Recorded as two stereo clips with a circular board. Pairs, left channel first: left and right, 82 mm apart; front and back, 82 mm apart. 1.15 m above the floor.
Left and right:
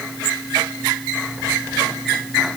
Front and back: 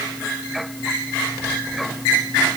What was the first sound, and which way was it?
Only background noise.